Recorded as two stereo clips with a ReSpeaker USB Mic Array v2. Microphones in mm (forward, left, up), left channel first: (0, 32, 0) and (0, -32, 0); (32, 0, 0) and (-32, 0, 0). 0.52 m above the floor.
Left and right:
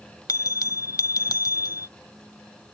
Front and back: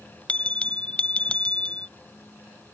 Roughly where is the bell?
Left.